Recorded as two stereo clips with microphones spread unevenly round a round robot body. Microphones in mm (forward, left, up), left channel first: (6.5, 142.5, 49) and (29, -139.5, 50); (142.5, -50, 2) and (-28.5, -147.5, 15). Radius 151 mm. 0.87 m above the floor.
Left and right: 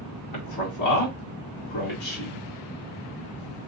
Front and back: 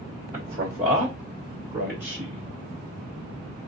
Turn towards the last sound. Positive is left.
turn(degrees=110)